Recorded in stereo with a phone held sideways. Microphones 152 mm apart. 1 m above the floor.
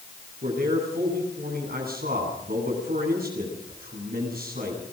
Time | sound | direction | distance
0.4 | a man speaking | 80° right | 9.5 m